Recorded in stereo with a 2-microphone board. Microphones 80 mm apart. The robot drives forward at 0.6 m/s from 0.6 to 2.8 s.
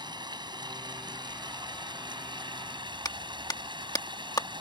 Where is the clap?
50° left (ahead or behind).